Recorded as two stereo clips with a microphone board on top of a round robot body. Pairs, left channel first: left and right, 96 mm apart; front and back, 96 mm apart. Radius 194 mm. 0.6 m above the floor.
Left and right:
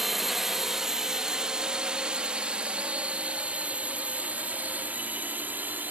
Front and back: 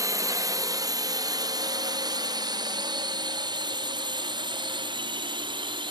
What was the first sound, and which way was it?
A drone, 175° right.